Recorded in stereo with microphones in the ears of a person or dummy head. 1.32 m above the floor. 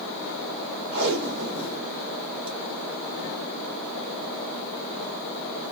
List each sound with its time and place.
0.9 s tape being pulled: 55° right (ahead or behind), 0.9 m